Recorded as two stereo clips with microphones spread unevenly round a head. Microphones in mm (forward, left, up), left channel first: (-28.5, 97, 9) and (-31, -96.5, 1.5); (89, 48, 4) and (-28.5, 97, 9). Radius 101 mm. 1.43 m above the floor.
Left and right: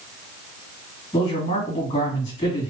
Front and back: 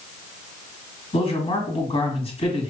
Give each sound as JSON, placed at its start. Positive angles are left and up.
{"t": 1.1, "sound": "a man speaking", "azimuth_deg": 15, "distance_m": 1.8}